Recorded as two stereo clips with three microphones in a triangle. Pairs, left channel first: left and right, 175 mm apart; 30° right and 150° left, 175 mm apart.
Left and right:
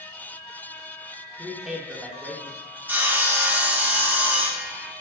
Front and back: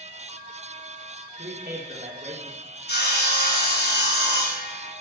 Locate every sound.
1.4 s a man speaking: straight behind, 3.5 m
2.9 s sawing: 10° right, 3 m